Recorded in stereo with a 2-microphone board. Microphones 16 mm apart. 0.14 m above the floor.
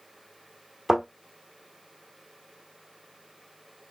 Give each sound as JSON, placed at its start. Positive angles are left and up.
{"t": 0.9, "sound": "a thud", "side_deg": -30, "distance_m": 1.5}